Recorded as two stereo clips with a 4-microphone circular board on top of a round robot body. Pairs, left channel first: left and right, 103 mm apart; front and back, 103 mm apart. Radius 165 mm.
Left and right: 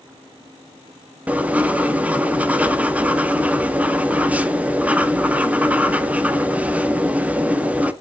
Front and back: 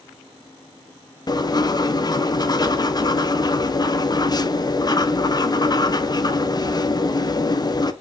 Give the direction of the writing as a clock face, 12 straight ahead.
1 o'clock.